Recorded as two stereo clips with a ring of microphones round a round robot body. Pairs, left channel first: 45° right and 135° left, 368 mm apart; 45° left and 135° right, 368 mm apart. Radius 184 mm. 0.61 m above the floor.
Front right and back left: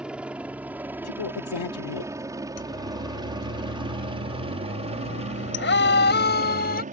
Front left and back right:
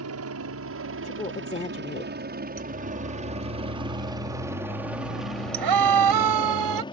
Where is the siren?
85° right; by 6.8 s 110° right.